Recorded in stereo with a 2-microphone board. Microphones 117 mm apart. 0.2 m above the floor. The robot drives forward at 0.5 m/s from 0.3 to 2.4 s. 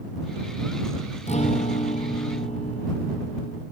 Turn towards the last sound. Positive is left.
turn(degrees=75)  # may be behind; listen again after turning